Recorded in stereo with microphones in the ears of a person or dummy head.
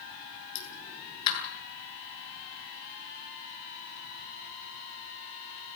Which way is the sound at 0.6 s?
40° left (ahead or behind).